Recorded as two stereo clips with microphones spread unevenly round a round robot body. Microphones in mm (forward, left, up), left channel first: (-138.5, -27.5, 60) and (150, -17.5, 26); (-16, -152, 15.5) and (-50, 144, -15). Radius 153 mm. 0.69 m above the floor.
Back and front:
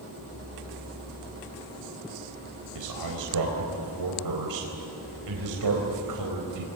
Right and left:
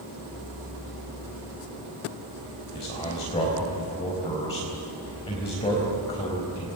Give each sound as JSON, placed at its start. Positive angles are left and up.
{"t": 2.8, "sound": "a man speaking", "azimuth_deg": -10, "distance_m": 4.0}